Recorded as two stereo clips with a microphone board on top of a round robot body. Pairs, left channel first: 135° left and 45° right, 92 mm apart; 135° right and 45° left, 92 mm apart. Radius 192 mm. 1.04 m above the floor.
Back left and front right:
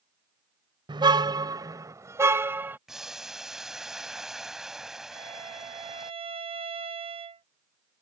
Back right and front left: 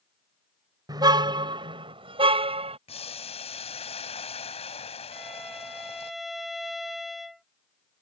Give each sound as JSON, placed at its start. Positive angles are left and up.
{"t": 0.9, "sound": "a car horn", "azimuth_deg": -5}
{"t": 2.9, "sound": "boiling", "azimuth_deg": -130}
{"t": 5.1, "sound": "a violin", "azimuth_deg": -45}